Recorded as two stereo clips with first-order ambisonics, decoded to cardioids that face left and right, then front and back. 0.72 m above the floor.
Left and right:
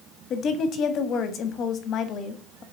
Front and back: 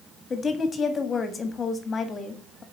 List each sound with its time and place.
0.3 s a woman speaking: 60° left, 1.4 m